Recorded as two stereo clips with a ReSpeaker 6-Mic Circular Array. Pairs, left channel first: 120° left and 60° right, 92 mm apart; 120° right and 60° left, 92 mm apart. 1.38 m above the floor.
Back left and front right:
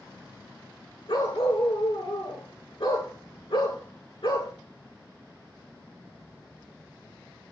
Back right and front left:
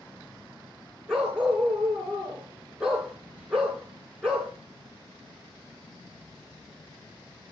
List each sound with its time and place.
1.1 s a dog barking: 140° left, 8.5 m